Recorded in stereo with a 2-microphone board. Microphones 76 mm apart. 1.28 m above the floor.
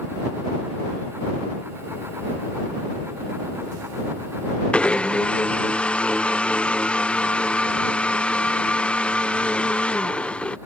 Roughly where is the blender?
Centre.